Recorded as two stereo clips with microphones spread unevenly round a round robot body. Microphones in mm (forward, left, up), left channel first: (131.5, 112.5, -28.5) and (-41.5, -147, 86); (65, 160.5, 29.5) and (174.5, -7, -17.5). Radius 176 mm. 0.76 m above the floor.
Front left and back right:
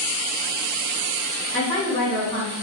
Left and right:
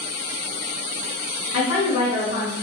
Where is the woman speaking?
130° left, 4 m.